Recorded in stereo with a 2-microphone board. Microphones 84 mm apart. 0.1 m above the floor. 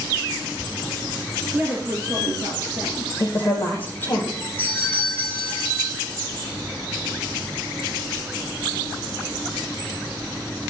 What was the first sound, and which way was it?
A woman speaking, 25° right (ahead or behind).